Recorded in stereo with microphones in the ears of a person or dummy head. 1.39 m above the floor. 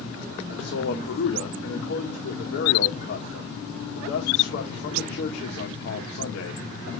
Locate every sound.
0.5 s a man speaking: 70° left (ahead or behind), 1.8 m